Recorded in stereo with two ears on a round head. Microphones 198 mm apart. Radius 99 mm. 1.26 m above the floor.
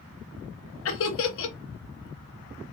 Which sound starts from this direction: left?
Laughter, at 0.8 s.